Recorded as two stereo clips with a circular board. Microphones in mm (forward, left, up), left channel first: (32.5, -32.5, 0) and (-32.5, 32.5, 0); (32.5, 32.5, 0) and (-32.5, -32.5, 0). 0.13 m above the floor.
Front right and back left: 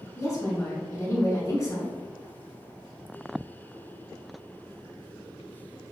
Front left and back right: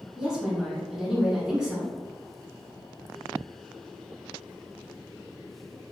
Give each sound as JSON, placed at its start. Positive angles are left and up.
{"t": 0.2, "sound": "a woman speaking", "azimuth_deg": -60, "distance_m": 1.3}